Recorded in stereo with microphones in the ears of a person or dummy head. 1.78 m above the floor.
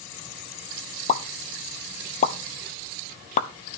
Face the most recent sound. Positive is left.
turn(degrees=40)  # may be behind; listen again after turning